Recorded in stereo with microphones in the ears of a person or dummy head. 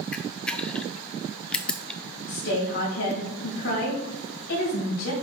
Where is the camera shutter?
5° left (ahead or behind), 0.5 m.